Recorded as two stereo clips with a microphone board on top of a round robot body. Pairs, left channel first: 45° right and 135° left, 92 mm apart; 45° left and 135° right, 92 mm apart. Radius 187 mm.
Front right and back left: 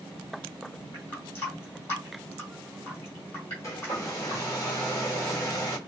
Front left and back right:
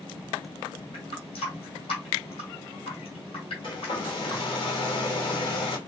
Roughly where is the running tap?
Ahead.